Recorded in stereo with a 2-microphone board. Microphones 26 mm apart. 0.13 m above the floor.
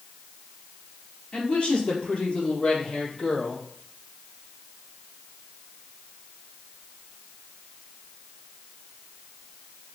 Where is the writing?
I don't hear writing.